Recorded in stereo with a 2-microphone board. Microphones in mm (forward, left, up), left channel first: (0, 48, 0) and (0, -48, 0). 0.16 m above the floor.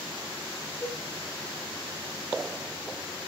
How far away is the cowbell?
About 10 m.